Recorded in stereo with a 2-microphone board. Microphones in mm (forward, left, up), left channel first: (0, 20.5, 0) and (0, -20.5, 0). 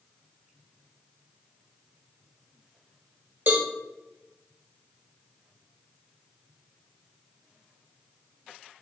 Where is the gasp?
I don't hear a gasp.